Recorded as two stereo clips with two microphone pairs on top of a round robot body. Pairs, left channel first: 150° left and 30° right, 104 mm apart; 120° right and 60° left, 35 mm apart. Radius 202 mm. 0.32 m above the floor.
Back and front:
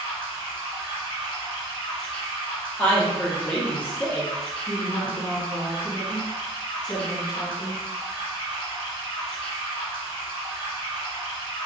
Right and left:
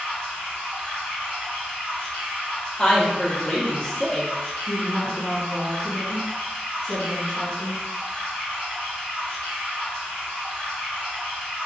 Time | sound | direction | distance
0.0 | running water | 70° right | 1.1 m
2.8 | a woman speaking | 160° right | 0.9 m
4.7 | a woman speaking | 165° left | 1.4 m